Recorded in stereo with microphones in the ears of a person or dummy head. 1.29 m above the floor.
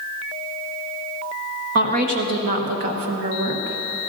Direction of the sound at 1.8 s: 50° right (ahead or behind).